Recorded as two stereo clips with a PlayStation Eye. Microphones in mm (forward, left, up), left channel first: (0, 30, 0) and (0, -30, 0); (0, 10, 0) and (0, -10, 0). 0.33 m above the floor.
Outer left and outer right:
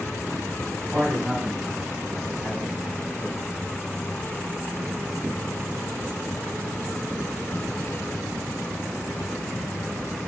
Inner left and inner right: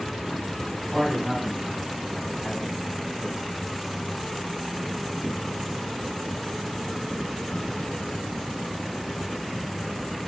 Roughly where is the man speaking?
Right.